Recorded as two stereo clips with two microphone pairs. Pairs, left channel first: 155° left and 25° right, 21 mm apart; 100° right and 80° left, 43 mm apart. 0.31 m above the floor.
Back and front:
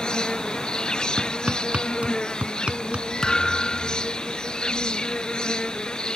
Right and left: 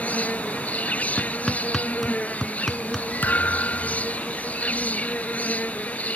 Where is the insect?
155° right.